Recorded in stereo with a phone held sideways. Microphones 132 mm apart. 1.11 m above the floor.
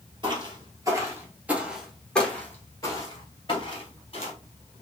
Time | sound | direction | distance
0.2 | footsteps | 35° right (ahead or behind) | 1.4 m